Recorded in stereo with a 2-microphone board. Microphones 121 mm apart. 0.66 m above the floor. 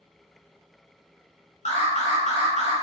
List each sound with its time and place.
1.6 s an alarm: 80° left, 2 m